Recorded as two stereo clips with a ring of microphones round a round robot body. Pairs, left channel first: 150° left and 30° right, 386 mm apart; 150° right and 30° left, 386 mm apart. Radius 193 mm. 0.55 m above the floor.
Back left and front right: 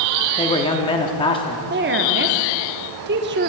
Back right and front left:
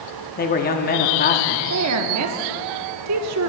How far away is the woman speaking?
About 0.8 m.